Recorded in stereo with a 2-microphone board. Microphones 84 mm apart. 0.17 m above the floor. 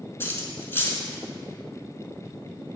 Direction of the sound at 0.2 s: 25° left (ahead or behind).